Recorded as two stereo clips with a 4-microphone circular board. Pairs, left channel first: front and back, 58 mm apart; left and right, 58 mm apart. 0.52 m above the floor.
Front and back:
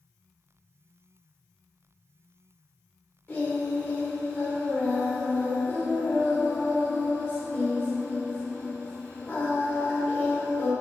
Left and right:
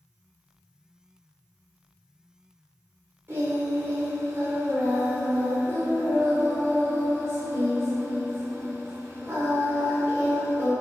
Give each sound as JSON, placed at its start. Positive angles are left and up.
{"t": 3.3, "sound": "singing", "azimuth_deg": -55, "distance_m": 0.9}